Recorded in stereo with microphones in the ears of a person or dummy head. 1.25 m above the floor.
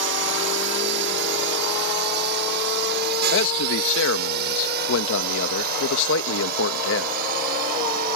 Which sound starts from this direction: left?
A man speaking, at 3.3 s.